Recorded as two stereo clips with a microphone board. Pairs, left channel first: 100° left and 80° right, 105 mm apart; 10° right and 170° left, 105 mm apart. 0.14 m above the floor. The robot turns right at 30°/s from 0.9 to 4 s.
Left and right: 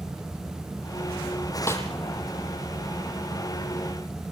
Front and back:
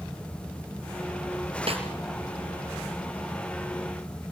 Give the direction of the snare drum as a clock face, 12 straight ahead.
7 o'clock.